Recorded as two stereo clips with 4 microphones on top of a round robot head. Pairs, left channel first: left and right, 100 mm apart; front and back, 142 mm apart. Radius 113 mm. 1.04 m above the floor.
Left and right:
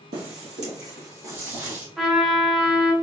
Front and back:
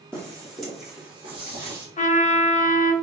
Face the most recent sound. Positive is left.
turn(degrees=0)